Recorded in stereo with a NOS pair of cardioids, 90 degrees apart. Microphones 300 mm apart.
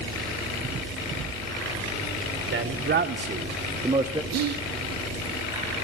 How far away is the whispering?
About 0.6 m.